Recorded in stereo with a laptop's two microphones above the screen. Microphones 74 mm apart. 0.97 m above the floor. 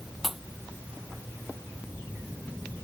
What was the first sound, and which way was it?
A pop, 5° right (ahead or behind).